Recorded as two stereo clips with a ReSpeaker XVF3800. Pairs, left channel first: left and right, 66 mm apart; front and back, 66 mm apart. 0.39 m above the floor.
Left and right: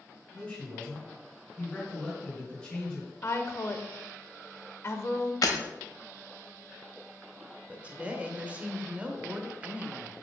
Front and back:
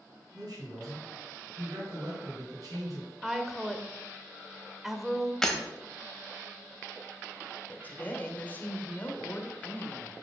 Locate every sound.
0.3 s a man speaking: 165° left, 4 m
3.2 s a woman speaking: 95° left, 0.9 m
5.4 s breaking glass: 80° left, 1.1 m
7.7 s a woman speaking: 35° right, 1.1 m